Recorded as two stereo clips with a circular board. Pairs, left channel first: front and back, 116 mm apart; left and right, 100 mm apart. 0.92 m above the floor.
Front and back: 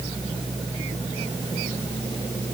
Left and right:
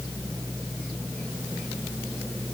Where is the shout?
I don't hear a shout.